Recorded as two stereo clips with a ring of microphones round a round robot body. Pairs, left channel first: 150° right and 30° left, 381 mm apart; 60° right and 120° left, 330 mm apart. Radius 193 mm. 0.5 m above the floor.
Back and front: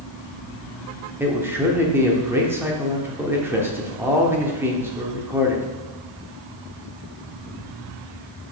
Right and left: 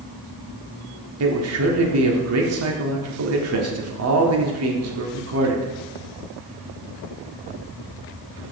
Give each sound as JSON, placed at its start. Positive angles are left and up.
{"t": 1.2, "sound": "a man speaking", "azimuth_deg": 110, "distance_m": 1.1}